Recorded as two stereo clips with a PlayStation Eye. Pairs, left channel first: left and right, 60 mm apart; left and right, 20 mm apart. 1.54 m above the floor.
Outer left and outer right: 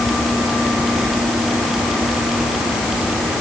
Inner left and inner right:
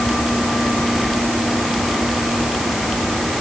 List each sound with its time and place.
Only background noise.